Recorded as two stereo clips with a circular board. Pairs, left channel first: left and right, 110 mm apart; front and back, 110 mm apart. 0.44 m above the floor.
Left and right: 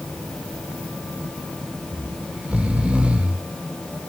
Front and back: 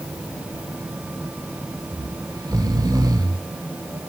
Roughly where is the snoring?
Behind.